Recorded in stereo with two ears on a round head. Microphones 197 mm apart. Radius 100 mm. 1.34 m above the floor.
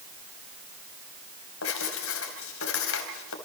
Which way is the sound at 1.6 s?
75° left (ahead or behind).